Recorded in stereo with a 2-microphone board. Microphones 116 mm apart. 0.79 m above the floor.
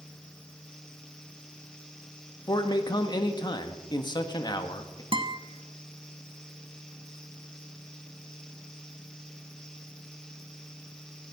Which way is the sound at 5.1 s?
45° right (ahead or behind).